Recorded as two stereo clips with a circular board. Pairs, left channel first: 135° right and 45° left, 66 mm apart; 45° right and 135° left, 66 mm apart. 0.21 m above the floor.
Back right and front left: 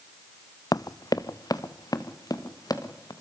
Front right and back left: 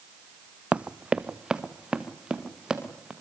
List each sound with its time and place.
0.7 s running footsteps: 155° right, 0.6 m; by 3.1 s 145° right, 4 m